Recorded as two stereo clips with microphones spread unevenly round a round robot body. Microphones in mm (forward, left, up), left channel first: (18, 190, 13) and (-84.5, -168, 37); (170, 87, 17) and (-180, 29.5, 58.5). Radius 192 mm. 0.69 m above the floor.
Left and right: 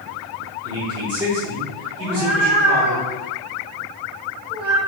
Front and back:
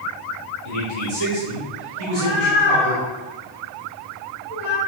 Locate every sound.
0.7 s a man speaking: 175° left, 2.5 m
2.0 s a cat meowing: 170° right, 3 m